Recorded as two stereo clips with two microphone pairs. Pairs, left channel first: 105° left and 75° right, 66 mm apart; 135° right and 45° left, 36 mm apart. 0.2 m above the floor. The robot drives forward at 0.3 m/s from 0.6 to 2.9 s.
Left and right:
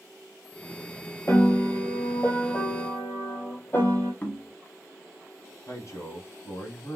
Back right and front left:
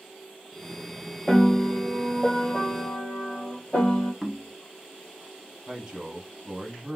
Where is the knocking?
145° left, 0.8 m.